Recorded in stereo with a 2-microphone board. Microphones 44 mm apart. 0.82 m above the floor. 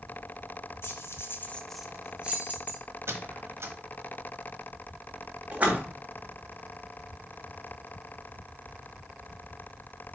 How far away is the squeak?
About 1.2 m.